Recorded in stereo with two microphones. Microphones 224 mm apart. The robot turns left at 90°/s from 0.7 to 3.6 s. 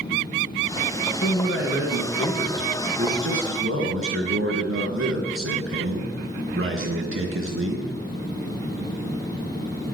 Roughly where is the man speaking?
Behind left.